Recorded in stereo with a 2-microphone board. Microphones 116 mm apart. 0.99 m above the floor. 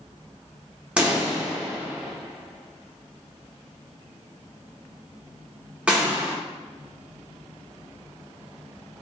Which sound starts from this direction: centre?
A pop, at 1.0 s.